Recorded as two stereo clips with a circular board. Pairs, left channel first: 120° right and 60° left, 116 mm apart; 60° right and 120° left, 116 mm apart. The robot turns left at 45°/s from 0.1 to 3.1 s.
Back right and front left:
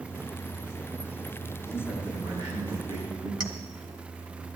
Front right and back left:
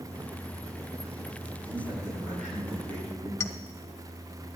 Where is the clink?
10° left, 1.1 m.